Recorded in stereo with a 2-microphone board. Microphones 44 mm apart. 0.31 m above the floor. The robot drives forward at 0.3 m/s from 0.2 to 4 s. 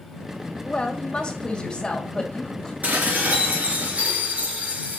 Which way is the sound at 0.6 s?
25° left (ahead or behind).